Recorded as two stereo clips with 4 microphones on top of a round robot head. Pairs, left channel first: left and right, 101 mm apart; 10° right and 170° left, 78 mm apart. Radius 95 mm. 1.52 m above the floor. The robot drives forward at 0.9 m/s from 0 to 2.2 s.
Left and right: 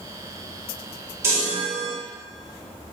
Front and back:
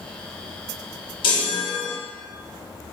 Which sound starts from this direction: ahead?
A chime, at 1.2 s.